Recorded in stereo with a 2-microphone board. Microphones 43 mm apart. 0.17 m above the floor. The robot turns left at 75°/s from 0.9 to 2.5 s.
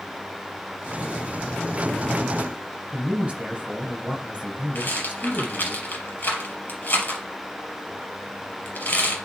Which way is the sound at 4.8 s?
45° left (ahead or behind).